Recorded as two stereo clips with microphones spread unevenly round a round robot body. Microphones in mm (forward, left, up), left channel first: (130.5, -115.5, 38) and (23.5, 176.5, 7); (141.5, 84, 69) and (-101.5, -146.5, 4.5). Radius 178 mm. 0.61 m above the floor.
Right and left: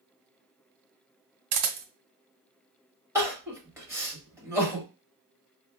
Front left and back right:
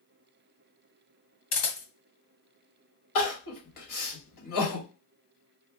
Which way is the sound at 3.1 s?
35° left.